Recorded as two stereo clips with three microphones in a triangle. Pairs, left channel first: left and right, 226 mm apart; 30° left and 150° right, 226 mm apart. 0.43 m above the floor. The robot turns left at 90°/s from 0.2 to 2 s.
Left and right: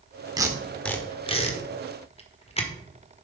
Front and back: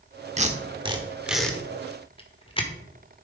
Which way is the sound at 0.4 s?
145° right.